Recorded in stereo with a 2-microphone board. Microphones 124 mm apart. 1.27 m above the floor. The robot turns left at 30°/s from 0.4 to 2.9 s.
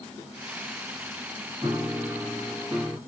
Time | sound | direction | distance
1.6 | a piano | 150° right | 1.7 m